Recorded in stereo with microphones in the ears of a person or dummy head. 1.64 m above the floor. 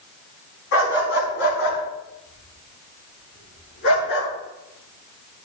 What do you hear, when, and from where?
0.7 s a dog barking: 70° left (ahead or behind), 4.5 m